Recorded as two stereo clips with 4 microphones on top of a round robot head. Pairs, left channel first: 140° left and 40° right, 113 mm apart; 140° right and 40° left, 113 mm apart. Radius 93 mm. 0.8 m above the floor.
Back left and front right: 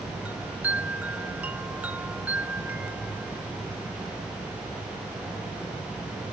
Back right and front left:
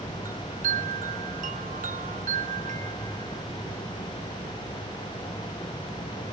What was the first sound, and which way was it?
A chime, 35° left.